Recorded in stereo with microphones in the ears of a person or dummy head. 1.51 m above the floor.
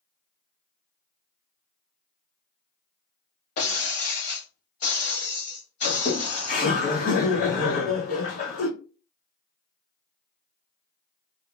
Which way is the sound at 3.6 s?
50° left (ahead or behind).